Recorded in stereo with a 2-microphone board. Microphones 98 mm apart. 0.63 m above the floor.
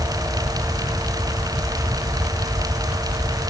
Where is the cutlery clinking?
I don't hear cutlery clinking.